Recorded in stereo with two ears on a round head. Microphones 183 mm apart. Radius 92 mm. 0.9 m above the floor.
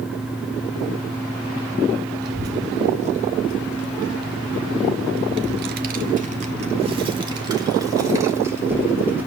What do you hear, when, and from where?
2.2 s a child speaking: 45° right (ahead or behind), 1.8 m; by 9.3 s 10° right (ahead or behind), 3 m